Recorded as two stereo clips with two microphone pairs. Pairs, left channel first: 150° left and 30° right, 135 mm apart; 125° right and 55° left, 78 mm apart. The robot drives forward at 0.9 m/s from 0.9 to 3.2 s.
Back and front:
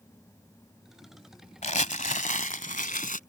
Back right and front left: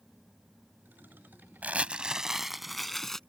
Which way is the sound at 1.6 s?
125° left.